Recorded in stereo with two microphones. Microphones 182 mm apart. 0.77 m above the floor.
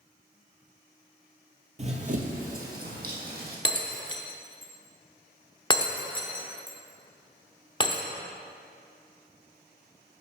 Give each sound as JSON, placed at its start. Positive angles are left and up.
{"t": 1.8, "sound": "running footsteps", "side_deg": -40, "distance_m": 0.9}
{"t": 3.6, "sound": "breaking glass", "side_deg": 25, "distance_m": 0.6}